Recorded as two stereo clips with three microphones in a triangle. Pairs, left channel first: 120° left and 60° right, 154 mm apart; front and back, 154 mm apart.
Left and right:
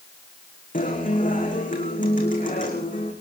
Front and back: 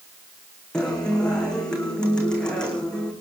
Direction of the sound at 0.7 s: 85° left.